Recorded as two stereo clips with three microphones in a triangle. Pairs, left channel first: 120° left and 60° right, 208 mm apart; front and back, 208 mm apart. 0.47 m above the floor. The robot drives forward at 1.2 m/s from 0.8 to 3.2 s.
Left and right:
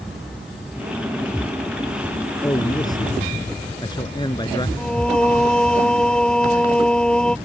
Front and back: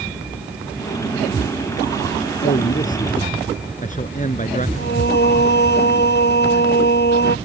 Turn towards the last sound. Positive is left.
turn(degrees=35)